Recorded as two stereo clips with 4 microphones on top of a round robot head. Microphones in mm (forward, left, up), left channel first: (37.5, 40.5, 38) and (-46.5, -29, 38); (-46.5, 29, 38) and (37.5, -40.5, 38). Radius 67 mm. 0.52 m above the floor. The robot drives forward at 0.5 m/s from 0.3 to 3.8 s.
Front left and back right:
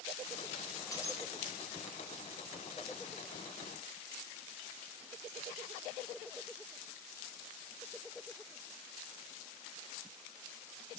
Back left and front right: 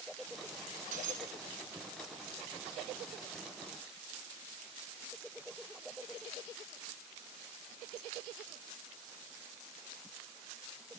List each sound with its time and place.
0.9 s breaking glass: 25° right, 3.5 m